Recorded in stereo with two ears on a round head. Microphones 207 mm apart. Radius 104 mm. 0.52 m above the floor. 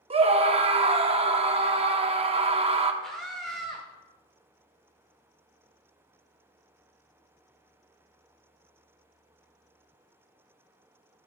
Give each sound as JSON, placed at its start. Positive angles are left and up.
{"t": 0.1, "sound": "a scream", "side_deg": -25, "distance_m": 0.7}
{"t": 3.0, "sound": "a scream", "side_deg": 0, "distance_m": 1.1}